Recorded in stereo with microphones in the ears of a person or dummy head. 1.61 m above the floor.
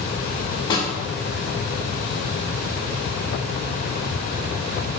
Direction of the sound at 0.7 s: 30° left (ahead or behind).